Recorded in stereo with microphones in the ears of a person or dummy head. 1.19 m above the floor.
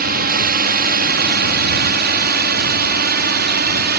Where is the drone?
45° right (ahead or behind); by 4.0 s 50° right (ahead or behind).